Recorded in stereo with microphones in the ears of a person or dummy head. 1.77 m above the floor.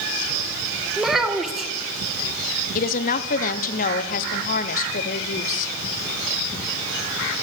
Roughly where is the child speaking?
Centre.